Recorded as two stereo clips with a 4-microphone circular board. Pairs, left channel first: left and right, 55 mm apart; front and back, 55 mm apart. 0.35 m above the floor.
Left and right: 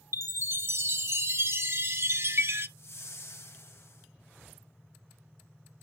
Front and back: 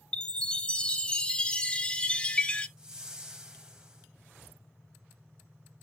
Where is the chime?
65° right, 0.7 m.